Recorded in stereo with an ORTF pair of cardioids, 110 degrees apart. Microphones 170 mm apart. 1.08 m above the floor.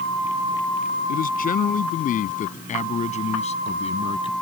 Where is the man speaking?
60° left; by 4.3 s 30° left.